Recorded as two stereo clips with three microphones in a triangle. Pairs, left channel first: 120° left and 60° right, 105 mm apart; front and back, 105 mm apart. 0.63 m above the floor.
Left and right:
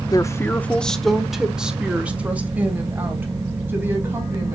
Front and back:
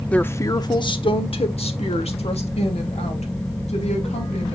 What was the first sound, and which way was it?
A woman speaking, 75° left.